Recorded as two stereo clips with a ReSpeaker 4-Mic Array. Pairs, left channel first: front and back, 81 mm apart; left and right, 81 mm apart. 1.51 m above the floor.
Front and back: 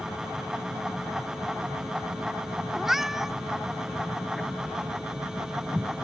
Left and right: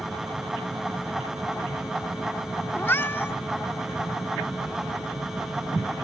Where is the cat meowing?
100° left.